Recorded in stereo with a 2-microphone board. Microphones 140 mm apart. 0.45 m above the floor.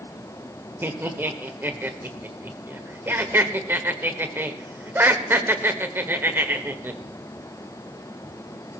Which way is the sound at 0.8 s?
15° right (ahead or behind).